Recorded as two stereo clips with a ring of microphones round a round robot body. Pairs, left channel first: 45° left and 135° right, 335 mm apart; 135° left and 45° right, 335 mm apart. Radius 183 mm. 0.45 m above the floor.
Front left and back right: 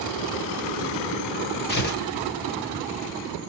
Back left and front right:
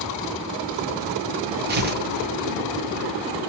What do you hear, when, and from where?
1.7 s tearing paper: straight ahead, 1.7 m